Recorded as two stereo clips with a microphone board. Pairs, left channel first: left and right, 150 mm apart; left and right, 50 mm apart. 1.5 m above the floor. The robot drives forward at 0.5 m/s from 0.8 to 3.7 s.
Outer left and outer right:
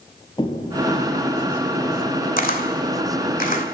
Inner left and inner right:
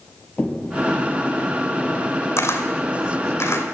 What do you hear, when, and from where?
0.4 s footsteps: 30° left (ahead or behind), 2.5 m; by 2.3 s 20° left (ahead or behind), 4 m
2.4 s a camera shutter: 60° left (ahead or behind), 2 m